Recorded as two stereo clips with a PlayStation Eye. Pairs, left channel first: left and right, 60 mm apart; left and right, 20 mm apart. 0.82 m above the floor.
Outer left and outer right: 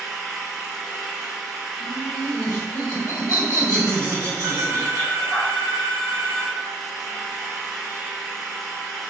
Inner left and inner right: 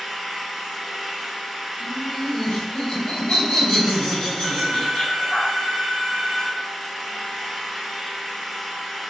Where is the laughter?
75° left (ahead or behind), 1.8 m.